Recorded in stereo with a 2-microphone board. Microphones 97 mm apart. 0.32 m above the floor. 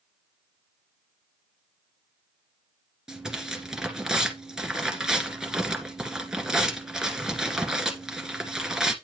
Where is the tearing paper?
5° right (ahead or behind), 1.8 m.